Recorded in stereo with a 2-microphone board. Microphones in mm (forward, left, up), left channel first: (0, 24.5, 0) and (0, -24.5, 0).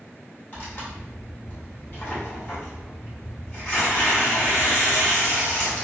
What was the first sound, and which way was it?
Tearing paper, 30° left (ahead or behind).